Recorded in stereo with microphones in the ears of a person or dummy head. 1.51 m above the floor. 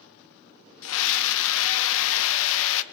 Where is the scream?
70° left (ahead or behind), 1.3 m.